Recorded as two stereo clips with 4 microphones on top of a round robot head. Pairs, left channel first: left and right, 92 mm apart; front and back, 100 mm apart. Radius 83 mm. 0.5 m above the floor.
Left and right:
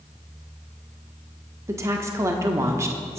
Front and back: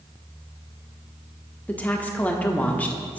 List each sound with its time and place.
1.7 s a woman speaking: 65° right, 1.3 m